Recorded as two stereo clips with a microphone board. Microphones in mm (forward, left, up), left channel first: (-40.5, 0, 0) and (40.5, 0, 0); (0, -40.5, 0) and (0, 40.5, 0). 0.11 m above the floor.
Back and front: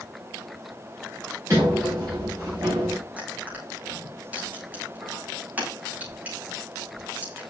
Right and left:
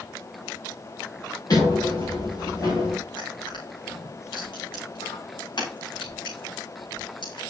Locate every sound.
1.5 s a sliding door: 50° right, 6 m
3.2 s crushing: 70° right, 6 m